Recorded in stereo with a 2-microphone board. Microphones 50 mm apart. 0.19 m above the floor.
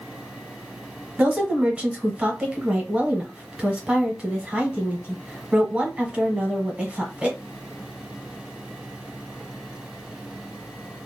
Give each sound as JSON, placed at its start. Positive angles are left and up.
{"t": 1.2, "sound": "a woman speaking", "side_deg": -25, "distance_m": 1.0}